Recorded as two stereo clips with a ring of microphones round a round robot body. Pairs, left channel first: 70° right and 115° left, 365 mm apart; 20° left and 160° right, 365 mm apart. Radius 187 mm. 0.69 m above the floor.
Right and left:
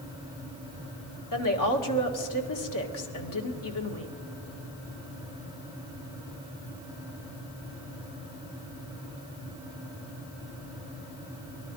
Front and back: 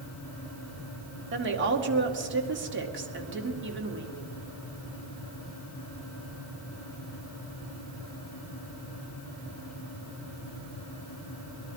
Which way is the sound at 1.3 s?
100° right.